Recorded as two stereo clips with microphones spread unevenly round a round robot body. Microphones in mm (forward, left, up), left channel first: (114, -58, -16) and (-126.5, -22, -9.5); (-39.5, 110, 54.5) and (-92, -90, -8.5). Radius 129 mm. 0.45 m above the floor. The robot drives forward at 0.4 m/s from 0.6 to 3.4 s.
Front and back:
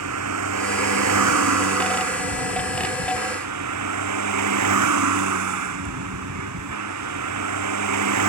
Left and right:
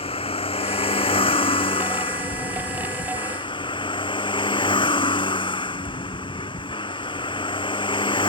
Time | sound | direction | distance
0.0 | a vehicle | 140° left | ?